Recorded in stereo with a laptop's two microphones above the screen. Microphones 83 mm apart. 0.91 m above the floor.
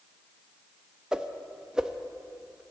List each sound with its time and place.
1.1 s a whoosh: 10° right (ahead or behind), 0.6 m